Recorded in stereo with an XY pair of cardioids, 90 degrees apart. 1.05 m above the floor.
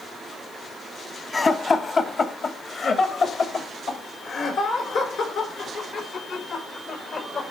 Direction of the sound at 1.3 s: 40° left.